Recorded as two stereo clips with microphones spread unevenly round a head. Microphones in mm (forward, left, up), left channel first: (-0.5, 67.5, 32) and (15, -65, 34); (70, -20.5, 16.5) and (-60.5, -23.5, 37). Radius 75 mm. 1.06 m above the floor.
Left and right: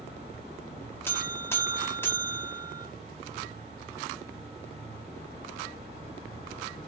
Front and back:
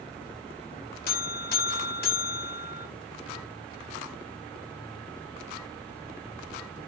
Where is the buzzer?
20° left, 2.5 m.